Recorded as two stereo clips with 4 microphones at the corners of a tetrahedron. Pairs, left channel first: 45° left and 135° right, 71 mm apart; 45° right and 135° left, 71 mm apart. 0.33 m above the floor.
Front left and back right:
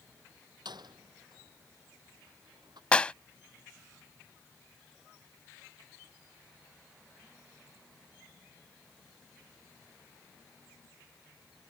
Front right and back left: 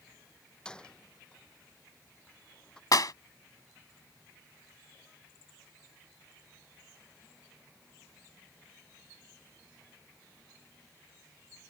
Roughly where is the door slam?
Behind right.